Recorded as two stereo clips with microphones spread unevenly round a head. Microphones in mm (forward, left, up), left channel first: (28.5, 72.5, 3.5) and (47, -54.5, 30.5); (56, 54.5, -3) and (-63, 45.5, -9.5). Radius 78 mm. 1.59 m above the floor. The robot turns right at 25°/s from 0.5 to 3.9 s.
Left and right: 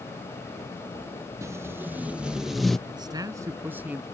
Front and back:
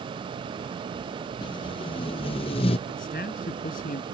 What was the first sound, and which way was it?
Tape being pulled, 35° right.